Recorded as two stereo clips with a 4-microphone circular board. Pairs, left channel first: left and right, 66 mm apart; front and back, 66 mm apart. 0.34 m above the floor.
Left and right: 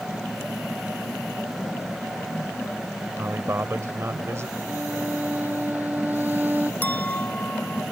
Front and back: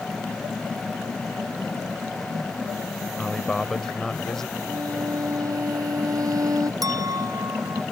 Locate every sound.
3.2 s a man speaking: 80° right
4.7 s a violin: 150° right
6.8 s a clink: 155° left